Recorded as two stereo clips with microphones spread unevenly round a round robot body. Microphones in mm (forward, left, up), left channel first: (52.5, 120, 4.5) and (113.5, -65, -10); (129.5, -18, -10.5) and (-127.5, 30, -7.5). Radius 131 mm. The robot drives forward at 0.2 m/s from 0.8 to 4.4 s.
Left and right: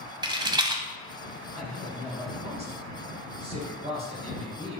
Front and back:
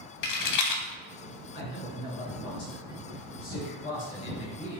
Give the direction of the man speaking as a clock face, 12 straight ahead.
1 o'clock.